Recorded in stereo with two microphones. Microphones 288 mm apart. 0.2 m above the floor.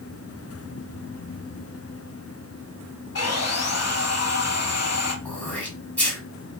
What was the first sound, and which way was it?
Sawing, 60° left (ahead or behind).